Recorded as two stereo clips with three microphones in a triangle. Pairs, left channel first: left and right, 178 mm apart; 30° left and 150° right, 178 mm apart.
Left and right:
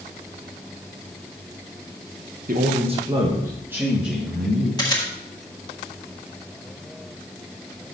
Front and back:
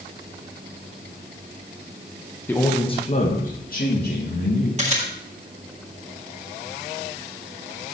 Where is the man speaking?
50° right, 1.1 m; by 4.7 s straight ahead, 3 m.